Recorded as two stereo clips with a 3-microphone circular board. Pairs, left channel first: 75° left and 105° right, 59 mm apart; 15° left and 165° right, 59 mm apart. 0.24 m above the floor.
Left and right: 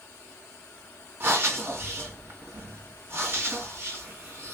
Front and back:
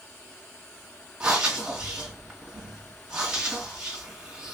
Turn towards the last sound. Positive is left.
turn(degrees=-105)